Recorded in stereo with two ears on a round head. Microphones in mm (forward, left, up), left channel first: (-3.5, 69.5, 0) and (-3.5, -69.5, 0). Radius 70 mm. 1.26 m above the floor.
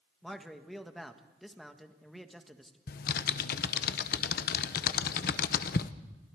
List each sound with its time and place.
0.2 s a man speaking: centre (ahead or behind), 1.5 m
2.9 s typing on a keyboard: 65° left (ahead or behind), 0.9 m